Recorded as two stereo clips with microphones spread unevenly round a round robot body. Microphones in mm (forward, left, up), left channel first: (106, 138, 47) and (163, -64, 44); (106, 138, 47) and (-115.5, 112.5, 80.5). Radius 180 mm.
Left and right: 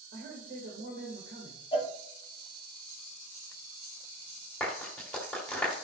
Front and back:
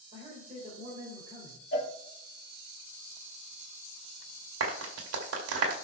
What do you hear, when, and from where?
0.1 s a man speaking: 105° right, 2.5 m
1.7 s a cowbell: 40° left, 3 m
4.6 s a clap: 170° right, 2.5 m